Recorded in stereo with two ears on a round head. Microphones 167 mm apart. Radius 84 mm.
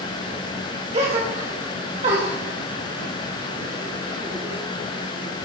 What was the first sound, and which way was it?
A gasp, 35° right (ahead or behind).